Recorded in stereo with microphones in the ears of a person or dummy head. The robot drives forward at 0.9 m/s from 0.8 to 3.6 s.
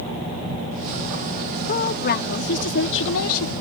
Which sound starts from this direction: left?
A woman speaking, at 1.7 s.